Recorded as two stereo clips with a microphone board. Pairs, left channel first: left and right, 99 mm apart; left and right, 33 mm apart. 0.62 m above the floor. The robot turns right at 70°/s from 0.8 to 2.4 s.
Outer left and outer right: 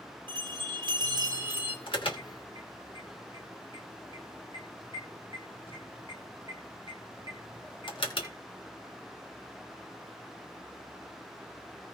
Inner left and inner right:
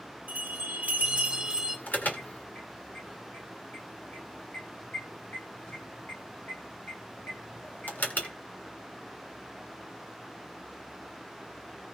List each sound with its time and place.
0.3 s a bell: 80° right, 2 m; by 1.8 s 15° right, 2 m
1.9 s an alarm: 55° left (ahead or behind), 2.5 m; by 8.3 s 60° left (ahead or behind), 2.5 m